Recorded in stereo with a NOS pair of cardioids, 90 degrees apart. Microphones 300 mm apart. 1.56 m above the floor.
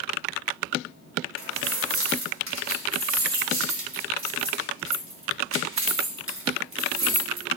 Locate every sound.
1.4 s keys jangling: 45° right, 2.5 m